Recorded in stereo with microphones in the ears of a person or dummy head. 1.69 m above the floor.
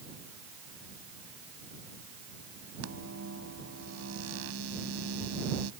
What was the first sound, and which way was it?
A microwave, 75° right (ahead or behind).